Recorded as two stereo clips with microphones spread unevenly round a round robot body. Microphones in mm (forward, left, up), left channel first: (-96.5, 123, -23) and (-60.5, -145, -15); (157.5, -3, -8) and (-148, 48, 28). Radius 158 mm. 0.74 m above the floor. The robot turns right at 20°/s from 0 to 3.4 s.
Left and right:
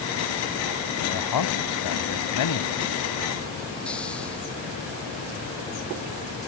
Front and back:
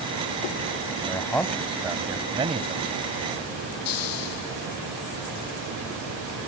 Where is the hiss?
10° left.